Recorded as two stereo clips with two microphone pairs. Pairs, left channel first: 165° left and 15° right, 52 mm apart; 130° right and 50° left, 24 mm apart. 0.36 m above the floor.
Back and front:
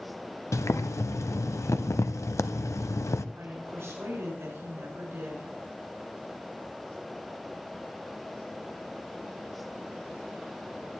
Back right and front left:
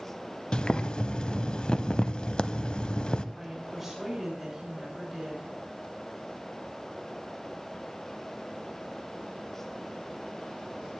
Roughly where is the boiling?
Behind.